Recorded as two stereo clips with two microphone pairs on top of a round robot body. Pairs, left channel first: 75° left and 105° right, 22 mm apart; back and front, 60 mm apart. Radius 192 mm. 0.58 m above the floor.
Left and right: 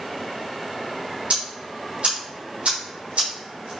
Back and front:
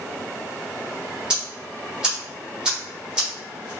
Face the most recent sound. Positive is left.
turn(degrees=-80)